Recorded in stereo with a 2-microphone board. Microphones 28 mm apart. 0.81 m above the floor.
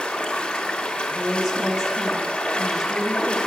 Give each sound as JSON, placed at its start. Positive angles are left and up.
{"t": 0.0, "sound": "running water", "side_deg": 35, "distance_m": 1.3}
{"t": 1.1, "sound": "a woman speaking", "side_deg": -15, "distance_m": 1.2}